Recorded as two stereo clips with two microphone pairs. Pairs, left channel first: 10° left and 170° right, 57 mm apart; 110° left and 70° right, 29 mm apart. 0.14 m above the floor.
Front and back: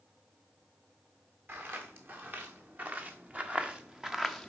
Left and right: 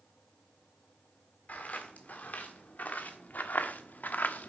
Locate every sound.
1.5 s footsteps: 140° left, 2.5 m; by 4.5 s 95° left, 0.7 m